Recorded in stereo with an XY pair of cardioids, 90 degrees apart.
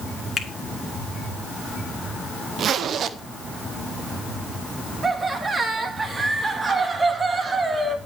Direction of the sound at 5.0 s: 40° right.